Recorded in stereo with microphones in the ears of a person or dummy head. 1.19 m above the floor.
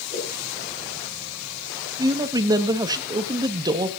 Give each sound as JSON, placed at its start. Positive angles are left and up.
{"t": 0.1, "sound": "a whoosh", "side_deg": 25, "distance_m": 9.5}
{"t": 2.0, "sound": "a man speaking", "side_deg": -20, "distance_m": 1.4}